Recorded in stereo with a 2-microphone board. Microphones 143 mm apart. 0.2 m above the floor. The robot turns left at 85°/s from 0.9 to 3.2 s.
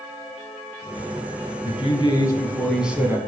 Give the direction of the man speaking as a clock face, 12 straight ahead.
9 o'clock.